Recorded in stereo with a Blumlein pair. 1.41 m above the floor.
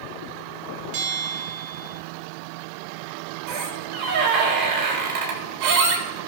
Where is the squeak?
35° right, 2.5 m.